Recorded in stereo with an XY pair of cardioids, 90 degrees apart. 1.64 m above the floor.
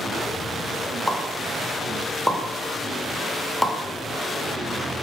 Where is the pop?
10° left, 0.9 m.